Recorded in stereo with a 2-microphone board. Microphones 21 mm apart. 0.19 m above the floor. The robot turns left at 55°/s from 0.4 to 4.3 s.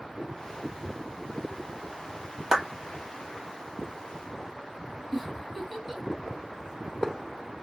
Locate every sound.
2.5 s a clap: 35° right (ahead or behind), 1.1 m
5.1 s a giggle: centre (ahead or behind), 1.6 m